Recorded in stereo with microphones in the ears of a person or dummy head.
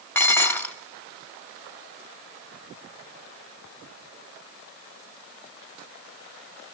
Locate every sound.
0.1 s dishes clattering: 15° left (ahead or behind), 1.4 m